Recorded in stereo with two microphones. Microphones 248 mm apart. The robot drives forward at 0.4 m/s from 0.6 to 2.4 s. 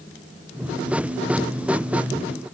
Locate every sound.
Only background noise.